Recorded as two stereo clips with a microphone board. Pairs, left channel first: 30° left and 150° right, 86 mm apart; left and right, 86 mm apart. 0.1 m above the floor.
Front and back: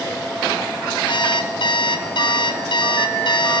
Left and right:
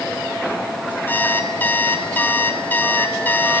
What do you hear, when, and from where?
1.1 s an alarm clock: 25° left, 1.5 m